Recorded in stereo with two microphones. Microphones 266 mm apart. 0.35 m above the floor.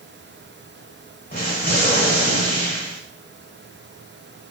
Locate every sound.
1.3 s an explosion: 35° left (ahead or behind), 1.2 m